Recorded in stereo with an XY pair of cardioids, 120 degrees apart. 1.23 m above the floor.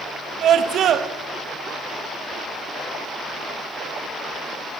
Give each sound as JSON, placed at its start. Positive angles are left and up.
{"t": 0.4, "sound": "a scream", "azimuth_deg": -60, "distance_m": 1.9}